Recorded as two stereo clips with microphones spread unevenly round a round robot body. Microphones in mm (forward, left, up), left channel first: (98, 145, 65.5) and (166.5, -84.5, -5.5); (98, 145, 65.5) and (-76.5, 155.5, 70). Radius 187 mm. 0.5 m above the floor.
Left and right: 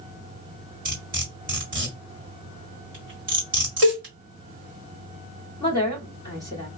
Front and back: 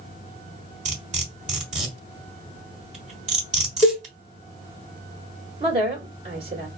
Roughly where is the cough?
No cough in this recording.